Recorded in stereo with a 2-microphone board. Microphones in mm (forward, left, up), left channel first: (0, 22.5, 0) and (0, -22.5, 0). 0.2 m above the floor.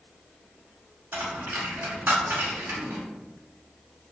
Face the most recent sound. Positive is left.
turn(degrees=-55)  # may be behind; listen again after turning